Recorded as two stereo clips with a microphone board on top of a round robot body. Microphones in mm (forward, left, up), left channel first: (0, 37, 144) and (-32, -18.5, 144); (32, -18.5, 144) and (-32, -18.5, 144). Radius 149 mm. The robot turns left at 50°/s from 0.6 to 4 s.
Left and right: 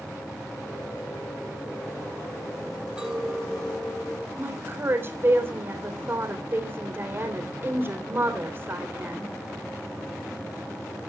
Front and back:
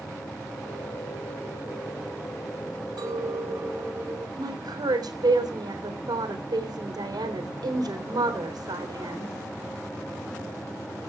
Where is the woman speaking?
175° right, 3.5 m.